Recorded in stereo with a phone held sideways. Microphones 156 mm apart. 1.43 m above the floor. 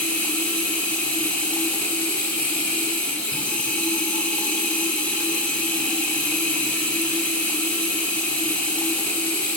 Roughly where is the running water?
Centre.